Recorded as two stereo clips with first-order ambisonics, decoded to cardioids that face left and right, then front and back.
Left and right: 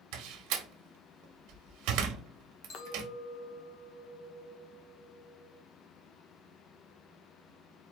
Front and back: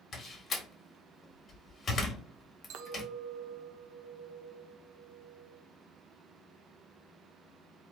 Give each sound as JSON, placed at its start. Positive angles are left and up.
{"t": 0.1, "sound": "a door slam", "azimuth_deg": -70, "distance_m": 1.1}
{"t": 2.7, "sound": "a clink", "azimuth_deg": 145, "distance_m": 0.8}